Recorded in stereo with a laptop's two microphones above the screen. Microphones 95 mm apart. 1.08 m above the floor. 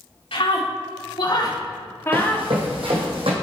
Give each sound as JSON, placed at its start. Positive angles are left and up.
{"t": 0.3, "sound": "a scream", "side_deg": 75, "distance_m": 3.0}
{"t": 2.1, "sound": "running footsteps", "side_deg": -70, "distance_m": 3.0}